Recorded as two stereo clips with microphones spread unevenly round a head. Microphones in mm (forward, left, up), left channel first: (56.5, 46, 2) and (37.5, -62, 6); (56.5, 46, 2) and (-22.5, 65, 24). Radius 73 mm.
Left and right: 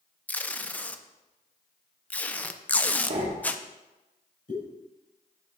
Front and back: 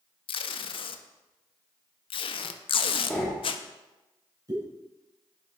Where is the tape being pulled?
5° left, 0.5 m.